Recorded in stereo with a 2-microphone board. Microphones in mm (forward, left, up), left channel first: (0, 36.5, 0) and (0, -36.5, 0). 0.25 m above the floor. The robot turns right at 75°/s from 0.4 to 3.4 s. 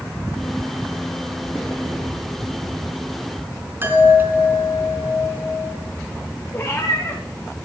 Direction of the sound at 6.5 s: 30° left (ahead or behind).